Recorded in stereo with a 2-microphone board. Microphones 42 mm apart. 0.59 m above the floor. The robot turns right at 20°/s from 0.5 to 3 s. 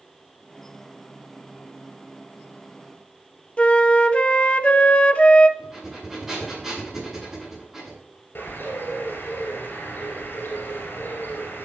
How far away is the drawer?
I don't hear a drawer.